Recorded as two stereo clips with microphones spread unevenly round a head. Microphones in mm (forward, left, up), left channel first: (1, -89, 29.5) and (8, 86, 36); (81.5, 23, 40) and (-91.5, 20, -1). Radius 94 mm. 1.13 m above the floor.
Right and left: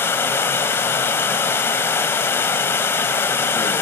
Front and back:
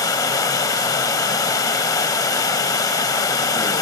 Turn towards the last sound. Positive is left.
turn(degrees=-20)